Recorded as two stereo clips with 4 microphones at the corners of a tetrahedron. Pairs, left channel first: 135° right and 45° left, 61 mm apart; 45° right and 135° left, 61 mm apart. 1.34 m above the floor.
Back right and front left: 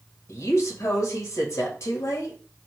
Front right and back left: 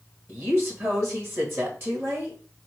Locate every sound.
0.3 s a woman speaking: straight behind, 1.8 m